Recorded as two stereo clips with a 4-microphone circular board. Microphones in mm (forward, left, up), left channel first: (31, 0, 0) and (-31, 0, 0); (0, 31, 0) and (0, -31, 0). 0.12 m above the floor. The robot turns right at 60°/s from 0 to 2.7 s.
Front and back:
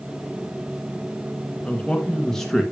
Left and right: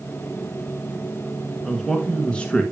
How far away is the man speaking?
About 1.7 m.